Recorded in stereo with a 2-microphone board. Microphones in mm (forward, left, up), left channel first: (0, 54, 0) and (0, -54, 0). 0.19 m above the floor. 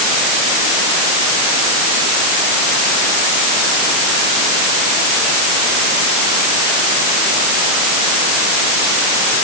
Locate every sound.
Only background noise.